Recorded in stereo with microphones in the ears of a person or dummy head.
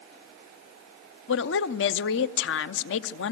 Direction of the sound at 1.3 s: 65° left (ahead or behind).